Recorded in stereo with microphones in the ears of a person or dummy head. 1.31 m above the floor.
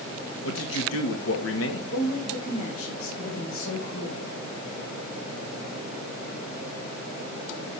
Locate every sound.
0.4 s a man speaking: 75° left (ahead or behind), 2 m
1.9 s a woman speaking: 85° left, 6 m